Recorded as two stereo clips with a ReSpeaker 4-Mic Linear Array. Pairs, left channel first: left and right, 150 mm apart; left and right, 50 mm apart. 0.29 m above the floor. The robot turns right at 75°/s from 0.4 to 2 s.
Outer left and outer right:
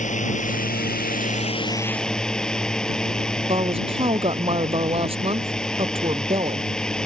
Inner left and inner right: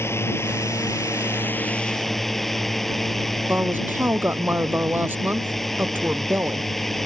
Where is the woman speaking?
40° right (ahead or behind).